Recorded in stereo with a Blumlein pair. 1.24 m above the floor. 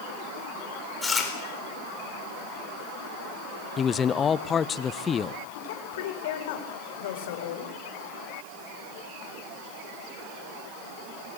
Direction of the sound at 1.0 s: 15° left.